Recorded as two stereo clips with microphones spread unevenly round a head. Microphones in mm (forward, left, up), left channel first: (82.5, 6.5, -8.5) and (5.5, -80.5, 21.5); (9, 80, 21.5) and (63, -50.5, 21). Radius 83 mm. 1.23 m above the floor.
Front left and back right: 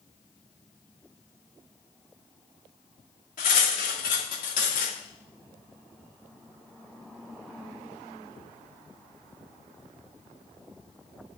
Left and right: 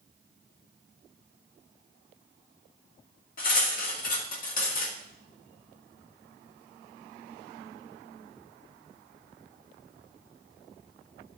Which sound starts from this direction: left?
Cutlery clinking, at 3.4 s.